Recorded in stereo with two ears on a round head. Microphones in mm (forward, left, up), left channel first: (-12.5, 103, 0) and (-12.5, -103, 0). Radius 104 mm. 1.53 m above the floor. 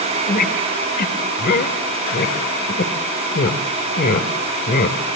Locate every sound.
0.3 s a squeak: 40° left (ahead or behind), 2.5 m